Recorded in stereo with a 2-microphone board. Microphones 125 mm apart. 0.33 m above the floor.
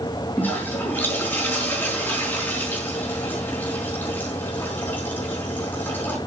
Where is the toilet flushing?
15° left (ahead or behind), 4.5 m.